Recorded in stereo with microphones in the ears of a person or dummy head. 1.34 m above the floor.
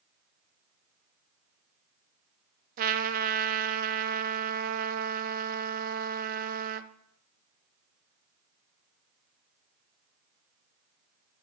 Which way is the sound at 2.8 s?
50° right (ahead or behind).